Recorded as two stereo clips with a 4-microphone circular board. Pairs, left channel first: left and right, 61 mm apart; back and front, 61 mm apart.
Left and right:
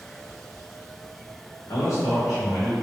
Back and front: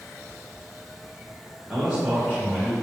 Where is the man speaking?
80° left, 0.8 m; by 2.7 s 65° left, 1.3 m.